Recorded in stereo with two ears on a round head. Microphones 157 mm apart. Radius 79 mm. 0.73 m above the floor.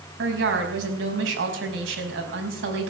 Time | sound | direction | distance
0.2 | a woman speaking | 80° right | 4.5 m